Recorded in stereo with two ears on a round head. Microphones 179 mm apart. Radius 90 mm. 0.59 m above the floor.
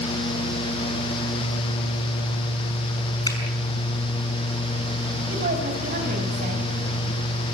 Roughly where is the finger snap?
Centre.